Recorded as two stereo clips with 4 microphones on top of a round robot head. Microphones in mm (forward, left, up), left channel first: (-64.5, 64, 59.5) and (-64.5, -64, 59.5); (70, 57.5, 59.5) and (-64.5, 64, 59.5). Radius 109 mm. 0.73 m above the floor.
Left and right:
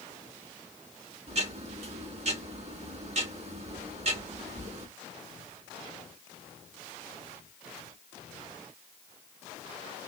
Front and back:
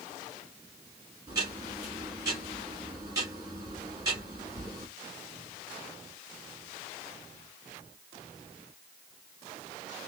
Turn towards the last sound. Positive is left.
turn(degrees=-115)